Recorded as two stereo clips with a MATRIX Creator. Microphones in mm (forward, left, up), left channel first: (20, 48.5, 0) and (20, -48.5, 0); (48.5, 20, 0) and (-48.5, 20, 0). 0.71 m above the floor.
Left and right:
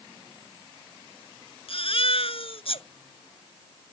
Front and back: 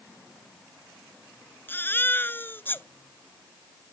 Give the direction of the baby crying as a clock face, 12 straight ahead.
10 o'clock.